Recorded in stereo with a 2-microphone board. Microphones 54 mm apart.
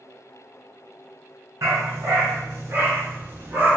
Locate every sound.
1.6 s a dog barking: 65° right (ahead or behind), 1.8 m; by 3.8 s 30° right (ahead or behind), 1.1 m